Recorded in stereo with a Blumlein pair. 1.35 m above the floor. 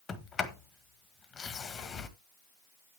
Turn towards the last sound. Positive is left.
turn(degrees=20)